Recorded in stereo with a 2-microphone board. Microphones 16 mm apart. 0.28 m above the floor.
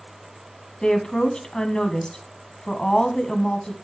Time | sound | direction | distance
0.8 | a woman speaking | 60° left (ahead or behind) | 1.7 m